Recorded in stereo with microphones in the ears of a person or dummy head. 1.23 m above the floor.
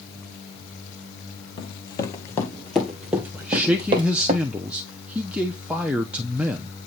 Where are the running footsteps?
30° left (ahead or behind), 1.6 m; by 4.3 s 40° right (ahead or behind), 1.6 m.